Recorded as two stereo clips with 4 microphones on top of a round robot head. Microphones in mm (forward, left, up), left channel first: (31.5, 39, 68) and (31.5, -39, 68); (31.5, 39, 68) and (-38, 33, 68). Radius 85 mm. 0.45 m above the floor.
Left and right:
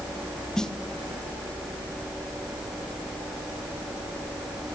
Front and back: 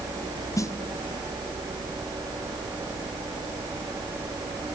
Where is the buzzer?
I don't hear a buzzer.